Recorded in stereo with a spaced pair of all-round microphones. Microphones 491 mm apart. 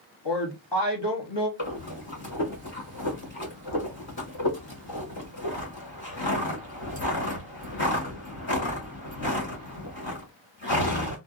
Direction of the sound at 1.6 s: 65° left (ahead or behind).